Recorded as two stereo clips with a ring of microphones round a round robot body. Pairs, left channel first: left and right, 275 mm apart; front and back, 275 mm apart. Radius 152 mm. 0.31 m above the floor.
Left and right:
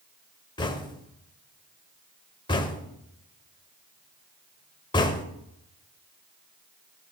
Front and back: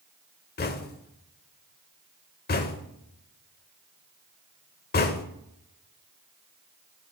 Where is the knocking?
25° left, 0.7 m.